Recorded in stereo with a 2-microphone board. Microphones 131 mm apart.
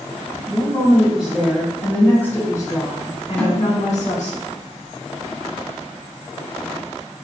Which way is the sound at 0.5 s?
15° right (ahead or behind).